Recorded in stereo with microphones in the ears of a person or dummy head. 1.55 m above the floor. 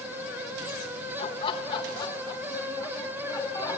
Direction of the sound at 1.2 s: 35° left (ahead or behind).